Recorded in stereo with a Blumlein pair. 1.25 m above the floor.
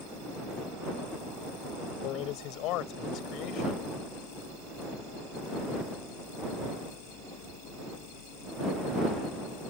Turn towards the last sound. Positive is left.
turn(degrees=40)